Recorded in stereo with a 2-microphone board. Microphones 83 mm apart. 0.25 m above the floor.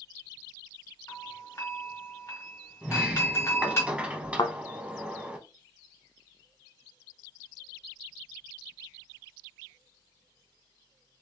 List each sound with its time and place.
1.1 s a doorbell: 35° left (ahead or behind), 1.8 m
2.8 s a sliding door: 15° right (ahead or behind), 0.6 m
4.4 s a thud: 65° left (ahead or behind), 0.6 m